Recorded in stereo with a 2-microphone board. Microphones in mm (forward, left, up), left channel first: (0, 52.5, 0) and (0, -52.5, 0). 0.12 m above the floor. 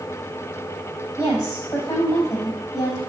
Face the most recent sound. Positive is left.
turn(degrees=30)  # may be behind; listen again after turning